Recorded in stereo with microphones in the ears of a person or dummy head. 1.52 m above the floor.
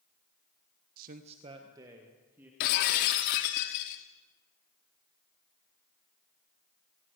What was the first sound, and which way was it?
A man speaking, 55° right (ahead or behind).